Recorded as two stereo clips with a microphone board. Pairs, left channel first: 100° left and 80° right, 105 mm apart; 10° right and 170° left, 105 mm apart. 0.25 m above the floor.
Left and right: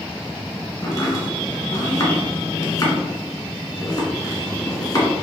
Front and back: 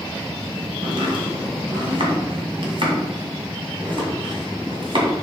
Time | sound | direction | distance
0.8 | chopping | 150° left | 2 m